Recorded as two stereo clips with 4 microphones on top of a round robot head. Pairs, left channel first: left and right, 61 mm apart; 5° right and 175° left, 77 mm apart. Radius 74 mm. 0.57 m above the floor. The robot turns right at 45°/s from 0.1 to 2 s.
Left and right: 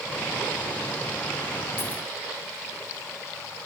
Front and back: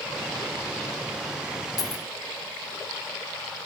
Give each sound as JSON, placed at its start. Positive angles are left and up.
{"t": 1.8, "sound": "a dropped coin", "azimuth_deg": 35, "distance_m": 1.7}